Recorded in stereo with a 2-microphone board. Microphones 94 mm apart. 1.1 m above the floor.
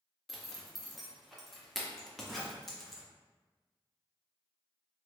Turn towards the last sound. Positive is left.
turn(degrees=0)  # may be behind; listen again after turning